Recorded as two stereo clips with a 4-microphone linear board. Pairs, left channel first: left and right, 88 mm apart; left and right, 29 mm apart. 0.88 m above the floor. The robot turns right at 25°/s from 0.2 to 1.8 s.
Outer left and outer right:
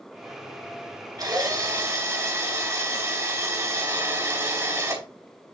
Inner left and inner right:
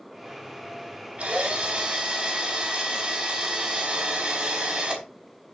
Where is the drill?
45° right (ahead or behind), 4.5 m; by 5.0 s 30° right (ahead or behind), 4.5 m.